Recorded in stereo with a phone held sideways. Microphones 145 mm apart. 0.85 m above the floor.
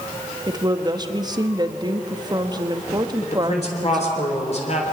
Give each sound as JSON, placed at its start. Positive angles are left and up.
{"t": 0.5, "sound": "a woman speaking", "side_deg": -30, "distance_m": 1.2}
{"t": 3.2, "sound": "a man speaking", "side_deg": 50, "distance_m": 3.5}